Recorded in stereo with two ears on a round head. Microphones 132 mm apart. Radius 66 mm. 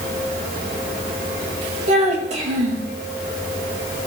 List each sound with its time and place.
1.9 s a child speaking: 50° right (ahead or behind), 2 m